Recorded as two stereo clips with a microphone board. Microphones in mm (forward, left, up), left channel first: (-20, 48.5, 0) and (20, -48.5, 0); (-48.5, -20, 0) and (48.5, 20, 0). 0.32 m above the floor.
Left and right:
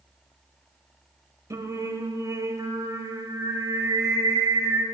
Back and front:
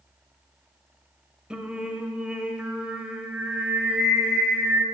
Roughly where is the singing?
Ahead right.